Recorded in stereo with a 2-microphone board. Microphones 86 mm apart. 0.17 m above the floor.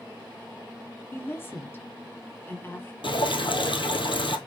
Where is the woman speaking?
25° left (ahead or behind), 2 m.